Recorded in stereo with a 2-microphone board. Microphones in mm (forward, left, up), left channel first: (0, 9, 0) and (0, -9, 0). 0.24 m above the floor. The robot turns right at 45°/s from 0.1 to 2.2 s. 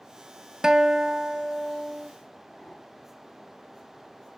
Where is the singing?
No singing in this recording.